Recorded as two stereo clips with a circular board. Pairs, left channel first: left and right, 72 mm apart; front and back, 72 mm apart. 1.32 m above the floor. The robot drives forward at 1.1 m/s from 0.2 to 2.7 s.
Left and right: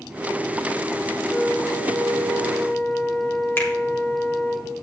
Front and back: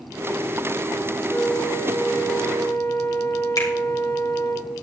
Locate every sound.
1.3 s a flute: 10° left, 4.5 m; by 4.6 s 20° left, 3 m
3.6 s a finger snap: 30° left, 3 m